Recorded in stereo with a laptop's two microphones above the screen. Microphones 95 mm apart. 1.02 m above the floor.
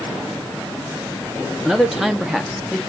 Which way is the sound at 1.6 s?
5° right (ahead or behind).